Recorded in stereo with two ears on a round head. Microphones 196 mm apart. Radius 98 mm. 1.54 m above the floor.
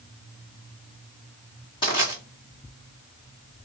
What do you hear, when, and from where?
1.8 s crushing: 20° left (ahead or behind), 1.7 m